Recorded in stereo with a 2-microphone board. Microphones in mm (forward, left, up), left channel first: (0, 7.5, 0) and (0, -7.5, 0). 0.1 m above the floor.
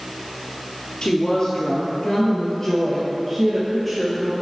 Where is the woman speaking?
55° left (ahead or behind), 1.8 m; by 4.3 s centre (ahead or behind), 2 m.